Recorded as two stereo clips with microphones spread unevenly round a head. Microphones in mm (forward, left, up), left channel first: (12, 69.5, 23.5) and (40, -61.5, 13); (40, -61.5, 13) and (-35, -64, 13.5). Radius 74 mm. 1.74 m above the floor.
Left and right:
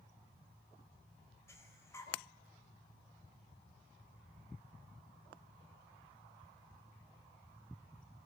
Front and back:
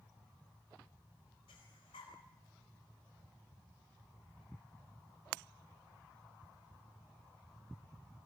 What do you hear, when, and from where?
1.5 s breathing: 35° left, 3.5 m